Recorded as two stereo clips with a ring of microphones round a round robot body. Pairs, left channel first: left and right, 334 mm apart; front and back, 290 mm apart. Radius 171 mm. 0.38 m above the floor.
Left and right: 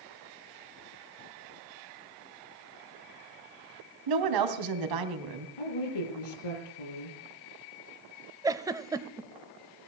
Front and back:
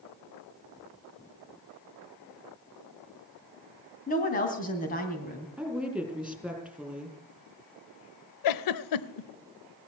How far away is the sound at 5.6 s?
About 6 m.